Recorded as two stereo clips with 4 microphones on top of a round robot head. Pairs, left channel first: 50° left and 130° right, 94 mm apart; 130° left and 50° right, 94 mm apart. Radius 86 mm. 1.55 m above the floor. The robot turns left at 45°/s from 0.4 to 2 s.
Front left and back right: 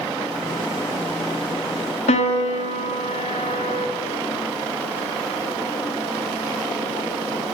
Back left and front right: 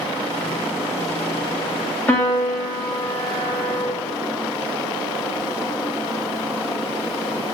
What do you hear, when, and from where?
2.1 s a piano: 60° left, 1.3 m